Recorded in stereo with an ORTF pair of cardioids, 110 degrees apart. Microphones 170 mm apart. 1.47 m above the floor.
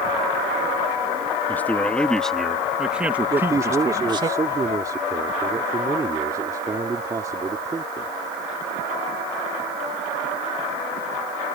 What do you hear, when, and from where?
1.5 s a man speaking: 10° left; by 4.3 s 30° right
3.3 s a man speaking: 20° right